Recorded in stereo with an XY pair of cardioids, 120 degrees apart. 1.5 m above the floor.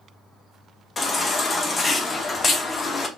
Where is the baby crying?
30° left, 0.7 m.